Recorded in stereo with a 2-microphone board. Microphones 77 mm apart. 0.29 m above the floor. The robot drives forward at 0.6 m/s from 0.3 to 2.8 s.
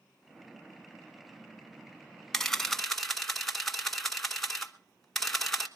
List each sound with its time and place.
2.3 s a camera shutter: 5° left (ahead or behind), 0.9 m